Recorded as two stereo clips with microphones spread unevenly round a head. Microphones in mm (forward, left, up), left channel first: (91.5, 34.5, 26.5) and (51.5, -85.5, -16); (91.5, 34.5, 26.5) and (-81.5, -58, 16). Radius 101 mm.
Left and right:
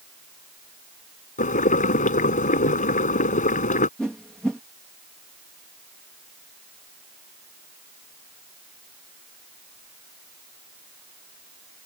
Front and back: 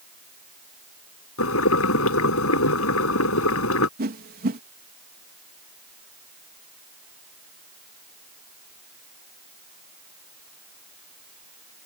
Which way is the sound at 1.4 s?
55° left.